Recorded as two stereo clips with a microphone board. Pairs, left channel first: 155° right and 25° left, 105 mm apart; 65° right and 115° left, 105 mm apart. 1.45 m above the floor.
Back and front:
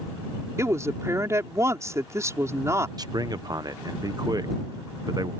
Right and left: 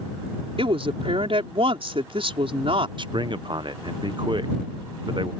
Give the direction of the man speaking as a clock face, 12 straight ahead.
10 o'clock.